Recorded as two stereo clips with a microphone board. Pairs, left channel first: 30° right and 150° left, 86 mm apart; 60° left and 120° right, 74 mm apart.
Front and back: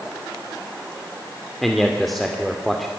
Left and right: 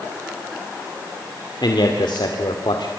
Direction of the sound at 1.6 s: 55° left.